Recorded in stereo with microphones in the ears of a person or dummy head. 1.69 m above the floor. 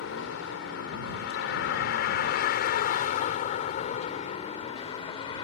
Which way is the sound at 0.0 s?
70° left (ahead or behind).